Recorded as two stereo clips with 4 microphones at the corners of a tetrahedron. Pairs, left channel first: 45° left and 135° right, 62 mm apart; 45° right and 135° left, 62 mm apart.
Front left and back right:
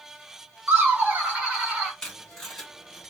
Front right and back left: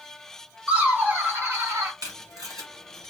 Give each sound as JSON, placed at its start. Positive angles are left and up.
{"t": 0.7, "sound": "laughter", "azimuth_deg": -170, "distance_m": 1.2}
{"t": 2.0, "sound": "tape being pulled", "azimuth_deg": 125, "distance_m": 1.2}